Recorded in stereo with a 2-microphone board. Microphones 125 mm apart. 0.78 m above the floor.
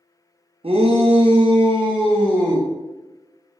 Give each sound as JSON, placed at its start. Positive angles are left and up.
{"t": 0.6, "sound": "a shout", "side_deg": -50, "distance_m": 0.6}